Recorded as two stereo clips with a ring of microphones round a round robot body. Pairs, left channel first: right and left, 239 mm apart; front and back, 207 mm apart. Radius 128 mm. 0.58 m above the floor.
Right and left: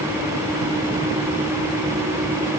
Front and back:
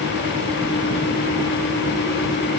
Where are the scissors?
No scissors in this recording.